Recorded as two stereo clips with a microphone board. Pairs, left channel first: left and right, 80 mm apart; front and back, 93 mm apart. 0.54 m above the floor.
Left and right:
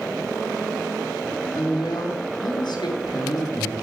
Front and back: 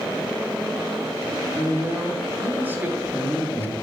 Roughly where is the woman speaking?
Left.